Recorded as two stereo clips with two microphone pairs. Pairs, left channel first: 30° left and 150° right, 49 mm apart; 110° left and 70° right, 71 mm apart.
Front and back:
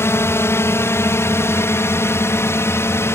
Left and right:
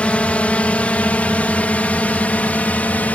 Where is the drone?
40° left; by 3.1 s 45° left.